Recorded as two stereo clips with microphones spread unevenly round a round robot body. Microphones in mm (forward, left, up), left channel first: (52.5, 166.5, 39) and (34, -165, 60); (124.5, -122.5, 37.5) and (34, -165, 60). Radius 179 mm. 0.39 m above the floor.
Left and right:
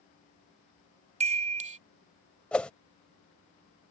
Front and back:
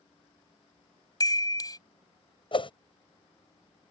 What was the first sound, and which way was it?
A chime, 25° right.